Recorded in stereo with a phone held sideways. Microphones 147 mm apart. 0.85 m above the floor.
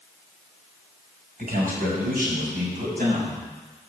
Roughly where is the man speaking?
Right.